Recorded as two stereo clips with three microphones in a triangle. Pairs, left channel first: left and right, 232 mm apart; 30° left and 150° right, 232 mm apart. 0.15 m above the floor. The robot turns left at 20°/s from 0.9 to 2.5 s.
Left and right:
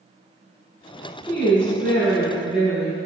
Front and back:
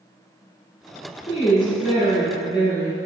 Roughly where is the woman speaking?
Ahead.